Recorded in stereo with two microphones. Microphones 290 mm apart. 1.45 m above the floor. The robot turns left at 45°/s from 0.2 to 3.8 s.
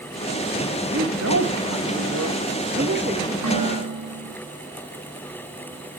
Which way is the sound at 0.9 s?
45° right.